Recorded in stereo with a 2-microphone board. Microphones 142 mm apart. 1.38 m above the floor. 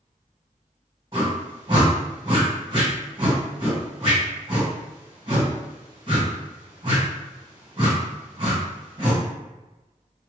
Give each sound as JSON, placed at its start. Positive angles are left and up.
{"t": 1.1, "sound": "a whoosh", "side_deg": -35, "distance_m": 1.3}